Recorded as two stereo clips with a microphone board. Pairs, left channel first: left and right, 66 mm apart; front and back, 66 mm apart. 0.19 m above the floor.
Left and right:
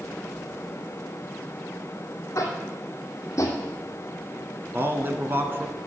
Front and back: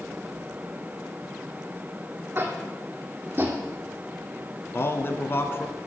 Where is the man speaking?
45° right, 1.9 m.